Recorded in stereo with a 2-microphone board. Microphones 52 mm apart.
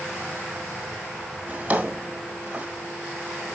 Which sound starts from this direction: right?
A drawer, at 1.5 s.